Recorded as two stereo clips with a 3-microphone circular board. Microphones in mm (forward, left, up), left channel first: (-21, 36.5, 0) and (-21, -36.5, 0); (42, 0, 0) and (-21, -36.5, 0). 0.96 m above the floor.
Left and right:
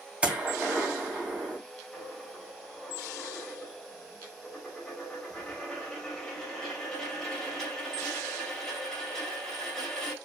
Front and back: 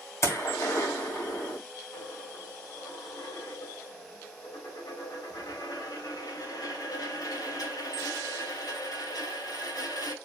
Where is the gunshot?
15° right, 2 m.